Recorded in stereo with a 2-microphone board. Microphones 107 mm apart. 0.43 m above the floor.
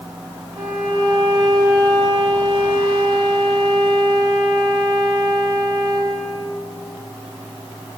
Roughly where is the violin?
Right.